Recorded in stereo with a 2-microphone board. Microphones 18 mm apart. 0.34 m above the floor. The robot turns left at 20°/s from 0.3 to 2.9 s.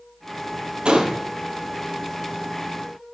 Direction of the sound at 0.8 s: 60° right (ahead or behind).